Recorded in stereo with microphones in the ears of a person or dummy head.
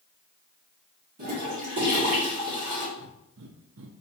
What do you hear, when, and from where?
1.2 s a toilet flushing: 40° right (ahead or behind), 1.8 m
3.0 s breathing: 65° right (ahead or behind), 0.6 m